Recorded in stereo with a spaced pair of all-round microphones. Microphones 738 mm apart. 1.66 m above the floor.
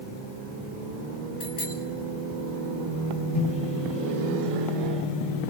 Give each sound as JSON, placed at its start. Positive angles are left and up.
{"t": 1.4, "sound": "a bicycle bell", "side_deg": 65, "distance_m": 6.0}
{"t": 3.3, "sound": "a microwave", "side_deg": 60, "distance_m": 8.5}